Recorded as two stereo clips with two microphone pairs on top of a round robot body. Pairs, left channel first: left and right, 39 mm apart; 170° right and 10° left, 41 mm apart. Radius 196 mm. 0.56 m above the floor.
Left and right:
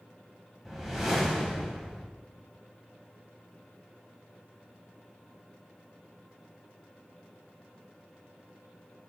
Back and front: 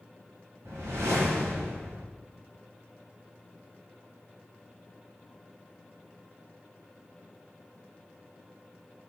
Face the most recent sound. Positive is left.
turn(degrees=-5)